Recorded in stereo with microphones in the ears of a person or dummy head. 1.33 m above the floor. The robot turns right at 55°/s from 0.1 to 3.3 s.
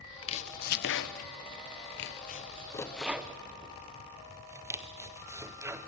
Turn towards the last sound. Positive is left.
turn(degrees=-15)  # may be behind; listen again after turning